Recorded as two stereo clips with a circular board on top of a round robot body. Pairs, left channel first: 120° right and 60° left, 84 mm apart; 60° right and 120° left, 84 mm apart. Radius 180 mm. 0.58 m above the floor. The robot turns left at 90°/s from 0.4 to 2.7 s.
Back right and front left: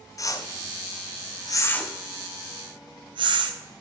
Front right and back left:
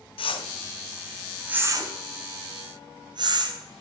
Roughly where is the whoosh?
Right.